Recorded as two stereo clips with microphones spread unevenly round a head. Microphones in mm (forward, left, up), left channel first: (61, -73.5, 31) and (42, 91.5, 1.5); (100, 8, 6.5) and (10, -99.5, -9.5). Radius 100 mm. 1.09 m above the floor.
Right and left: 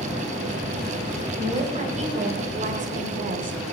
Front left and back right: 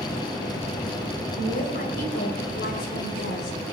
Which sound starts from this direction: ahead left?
A woman speaking, at 1.4 s.